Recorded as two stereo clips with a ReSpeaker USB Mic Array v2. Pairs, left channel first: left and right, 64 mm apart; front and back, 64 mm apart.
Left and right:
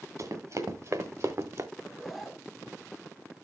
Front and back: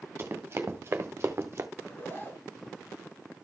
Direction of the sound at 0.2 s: 125° right.